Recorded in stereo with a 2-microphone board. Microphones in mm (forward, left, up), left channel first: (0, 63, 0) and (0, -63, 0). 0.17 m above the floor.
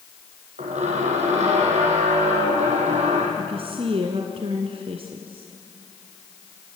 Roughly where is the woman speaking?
Right.